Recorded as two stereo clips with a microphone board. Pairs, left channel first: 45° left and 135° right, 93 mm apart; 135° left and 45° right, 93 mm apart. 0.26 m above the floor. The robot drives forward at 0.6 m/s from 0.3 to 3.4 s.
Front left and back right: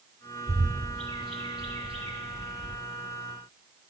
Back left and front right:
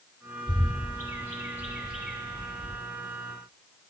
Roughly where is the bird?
Right.